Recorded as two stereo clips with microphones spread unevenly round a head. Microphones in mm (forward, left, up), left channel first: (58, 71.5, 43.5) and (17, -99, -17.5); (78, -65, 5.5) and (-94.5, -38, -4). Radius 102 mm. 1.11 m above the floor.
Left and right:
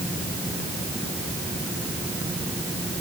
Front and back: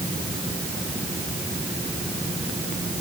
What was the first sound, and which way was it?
Only background noise.